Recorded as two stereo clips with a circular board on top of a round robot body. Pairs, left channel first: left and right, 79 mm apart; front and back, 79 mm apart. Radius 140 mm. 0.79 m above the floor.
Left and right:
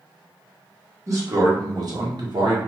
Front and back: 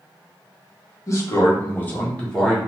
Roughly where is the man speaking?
Ahead right.